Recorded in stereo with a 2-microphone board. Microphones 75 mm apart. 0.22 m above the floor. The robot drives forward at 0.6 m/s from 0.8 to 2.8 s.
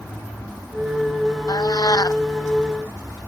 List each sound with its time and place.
1.5 s a cat meowing: 60° left (ahead or behind); by 2.2 s 55° left (ahead or behind)